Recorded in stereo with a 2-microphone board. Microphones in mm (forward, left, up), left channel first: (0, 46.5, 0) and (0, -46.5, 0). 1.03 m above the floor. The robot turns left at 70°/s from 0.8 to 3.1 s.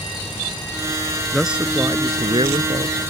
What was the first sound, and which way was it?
A man speaking, 5° left.